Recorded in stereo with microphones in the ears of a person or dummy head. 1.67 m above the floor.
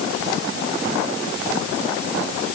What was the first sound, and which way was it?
Only background noise.